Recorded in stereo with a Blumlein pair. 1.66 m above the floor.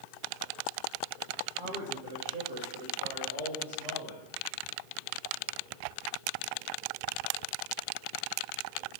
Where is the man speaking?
45° right, 2.5 m; by 4.2 s 70° right, 4.5 m.